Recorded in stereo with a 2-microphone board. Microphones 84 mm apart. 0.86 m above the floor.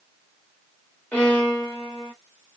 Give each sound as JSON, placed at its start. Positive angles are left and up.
{"t": 1.1, "sound": "a violin", "side_deg": 15, "distance_m": 1.3}